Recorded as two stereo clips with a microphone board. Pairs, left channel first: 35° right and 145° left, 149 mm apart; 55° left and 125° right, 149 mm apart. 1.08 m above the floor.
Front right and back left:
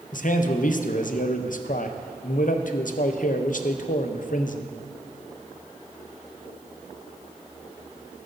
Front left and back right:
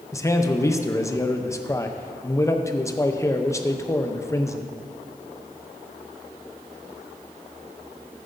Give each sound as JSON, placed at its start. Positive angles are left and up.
{"t": 0.1, "sound": "a man speaking", "azimuth_deg": -15, "distance_m": 0.6}